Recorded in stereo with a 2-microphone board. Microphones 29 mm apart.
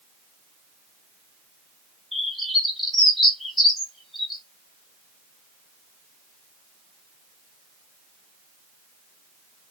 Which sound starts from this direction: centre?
A bird, at 2.1 s.